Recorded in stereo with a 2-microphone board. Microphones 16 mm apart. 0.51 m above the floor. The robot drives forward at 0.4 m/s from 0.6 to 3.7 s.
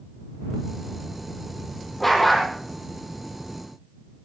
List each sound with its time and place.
2.0 s a dog barking: 15° left (ahead or behind), 6 m